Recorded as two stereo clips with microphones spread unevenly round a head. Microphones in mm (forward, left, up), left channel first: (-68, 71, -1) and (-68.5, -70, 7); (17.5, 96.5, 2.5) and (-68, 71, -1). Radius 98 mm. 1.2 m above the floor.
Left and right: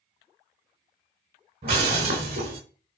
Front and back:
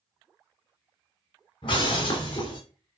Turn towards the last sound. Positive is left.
turn(degrees=-35)